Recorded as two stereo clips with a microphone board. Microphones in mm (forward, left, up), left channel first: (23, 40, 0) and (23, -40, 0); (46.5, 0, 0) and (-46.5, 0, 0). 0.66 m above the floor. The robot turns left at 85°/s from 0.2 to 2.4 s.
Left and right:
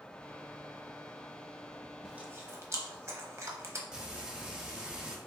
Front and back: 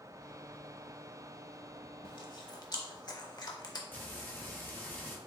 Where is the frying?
25° right, 0.9 m.